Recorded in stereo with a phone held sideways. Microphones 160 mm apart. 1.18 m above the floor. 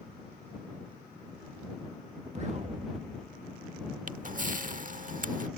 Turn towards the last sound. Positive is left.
turn(degrees=-55)  # may be behind; listen again after turning